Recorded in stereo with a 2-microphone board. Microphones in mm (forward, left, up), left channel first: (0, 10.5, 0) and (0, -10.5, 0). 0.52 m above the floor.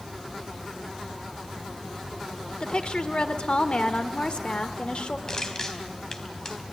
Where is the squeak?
I don't hear a squeak.